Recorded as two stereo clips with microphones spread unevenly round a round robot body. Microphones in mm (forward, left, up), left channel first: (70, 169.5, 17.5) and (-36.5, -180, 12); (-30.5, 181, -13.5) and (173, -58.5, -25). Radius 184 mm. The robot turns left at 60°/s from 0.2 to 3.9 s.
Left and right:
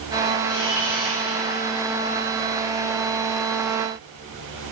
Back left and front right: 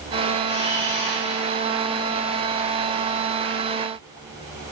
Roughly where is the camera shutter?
Behind left.